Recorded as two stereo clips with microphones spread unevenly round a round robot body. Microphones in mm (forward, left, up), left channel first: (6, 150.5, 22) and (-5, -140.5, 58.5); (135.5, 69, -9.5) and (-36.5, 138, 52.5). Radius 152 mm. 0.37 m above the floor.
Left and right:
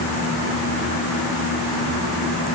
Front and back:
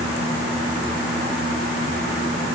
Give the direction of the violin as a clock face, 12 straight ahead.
I don't hear a violin.